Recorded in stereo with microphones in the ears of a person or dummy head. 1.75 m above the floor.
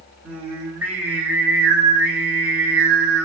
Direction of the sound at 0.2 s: 10° right (ahead or behind).